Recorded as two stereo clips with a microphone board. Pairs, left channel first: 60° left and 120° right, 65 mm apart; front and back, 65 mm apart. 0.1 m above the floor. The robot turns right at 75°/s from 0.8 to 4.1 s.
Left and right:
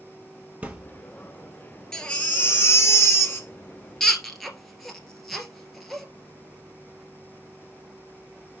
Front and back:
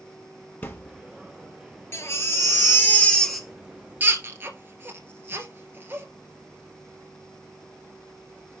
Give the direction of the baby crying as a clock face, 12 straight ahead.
1 o'clock.